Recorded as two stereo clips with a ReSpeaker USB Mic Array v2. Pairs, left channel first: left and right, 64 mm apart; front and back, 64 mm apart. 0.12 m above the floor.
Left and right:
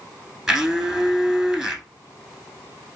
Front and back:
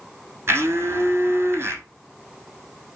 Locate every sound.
0.5 s a blender: 175° right, 1.2 m